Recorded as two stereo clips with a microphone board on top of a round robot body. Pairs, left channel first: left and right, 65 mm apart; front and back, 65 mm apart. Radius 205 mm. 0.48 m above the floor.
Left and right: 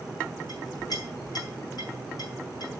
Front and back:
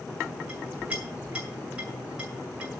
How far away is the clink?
About 7 m.